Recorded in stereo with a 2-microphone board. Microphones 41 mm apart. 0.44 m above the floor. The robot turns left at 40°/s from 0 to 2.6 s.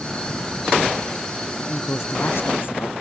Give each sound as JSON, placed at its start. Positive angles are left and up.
{"t": 1.6, "sound": "a woman speaking", "azimuth_deg": 100}